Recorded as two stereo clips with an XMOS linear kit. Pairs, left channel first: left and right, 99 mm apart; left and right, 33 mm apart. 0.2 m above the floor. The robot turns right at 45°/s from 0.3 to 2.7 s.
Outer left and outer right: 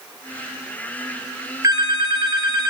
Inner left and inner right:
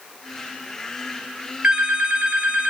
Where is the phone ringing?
120° right, 0.7 m; by 2.7 s 75° right, 0.7 m.